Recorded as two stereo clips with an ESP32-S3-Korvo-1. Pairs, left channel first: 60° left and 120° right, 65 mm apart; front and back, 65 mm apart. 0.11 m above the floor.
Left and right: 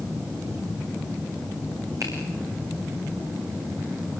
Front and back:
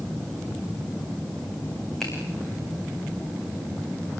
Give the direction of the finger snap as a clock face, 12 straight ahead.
3 o'clock.